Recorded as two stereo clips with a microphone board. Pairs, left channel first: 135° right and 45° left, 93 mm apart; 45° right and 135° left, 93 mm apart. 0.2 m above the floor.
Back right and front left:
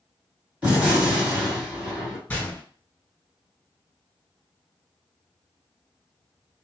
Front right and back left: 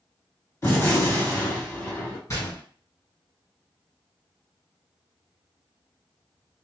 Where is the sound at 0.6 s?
15° right, 1.9 m.